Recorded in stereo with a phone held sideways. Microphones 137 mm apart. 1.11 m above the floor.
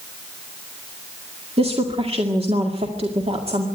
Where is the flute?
No flute in this recording.